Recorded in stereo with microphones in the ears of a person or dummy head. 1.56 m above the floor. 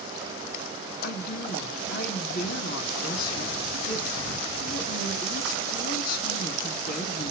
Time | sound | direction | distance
1.0 | a woman speaking | 50° left (ahead or behind) | 3 m